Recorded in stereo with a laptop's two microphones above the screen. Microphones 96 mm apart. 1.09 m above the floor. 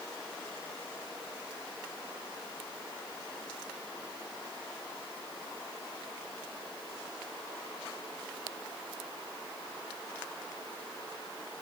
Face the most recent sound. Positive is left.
No sound to turn to.